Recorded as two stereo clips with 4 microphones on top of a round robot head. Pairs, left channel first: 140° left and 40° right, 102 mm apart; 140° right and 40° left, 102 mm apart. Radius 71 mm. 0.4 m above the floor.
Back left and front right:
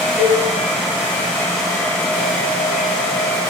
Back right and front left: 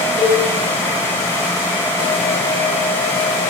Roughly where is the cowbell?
Ahead left.